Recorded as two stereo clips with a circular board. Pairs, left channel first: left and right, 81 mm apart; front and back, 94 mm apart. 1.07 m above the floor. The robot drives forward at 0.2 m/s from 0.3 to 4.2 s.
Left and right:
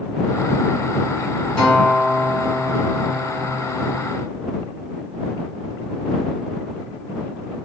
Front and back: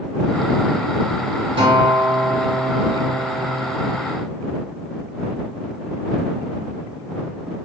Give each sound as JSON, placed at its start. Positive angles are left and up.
{"t": 1.6, "sound": "a guitar", "azimuth_deg": 165, "distance_m": 1.8}